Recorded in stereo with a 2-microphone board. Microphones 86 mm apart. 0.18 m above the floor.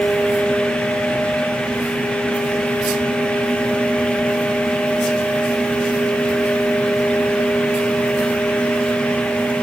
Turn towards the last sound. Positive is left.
No sound to turn to.